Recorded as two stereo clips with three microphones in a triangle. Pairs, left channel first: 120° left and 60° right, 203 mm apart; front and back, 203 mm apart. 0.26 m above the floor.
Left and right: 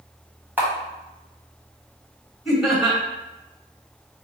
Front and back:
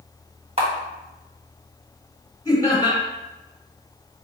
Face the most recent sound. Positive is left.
turn(degrees=25)